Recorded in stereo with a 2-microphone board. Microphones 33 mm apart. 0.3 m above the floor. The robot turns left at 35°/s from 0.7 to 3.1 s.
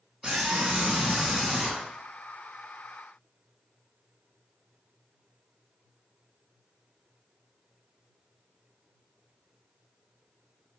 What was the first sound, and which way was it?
A scream, 145° right.